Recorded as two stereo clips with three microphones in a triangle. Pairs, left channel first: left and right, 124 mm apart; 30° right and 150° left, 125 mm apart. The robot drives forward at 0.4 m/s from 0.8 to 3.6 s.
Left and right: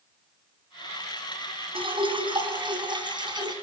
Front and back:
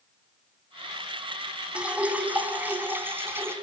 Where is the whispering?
I don't hear whispering.